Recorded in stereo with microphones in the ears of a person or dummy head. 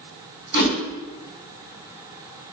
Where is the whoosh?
55° left (ahead or behind), 0.9 m.